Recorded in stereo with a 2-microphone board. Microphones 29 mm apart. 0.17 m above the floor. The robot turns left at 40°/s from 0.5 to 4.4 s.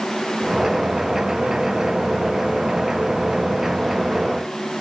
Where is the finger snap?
No finger snap in this recording.